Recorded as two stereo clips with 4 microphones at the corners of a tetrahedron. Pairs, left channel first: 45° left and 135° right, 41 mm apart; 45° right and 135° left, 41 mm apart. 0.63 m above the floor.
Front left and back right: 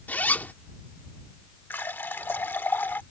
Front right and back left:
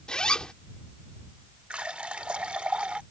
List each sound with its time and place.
0.1 s a zipper: 20° left
1.7 s a running tap: 75° left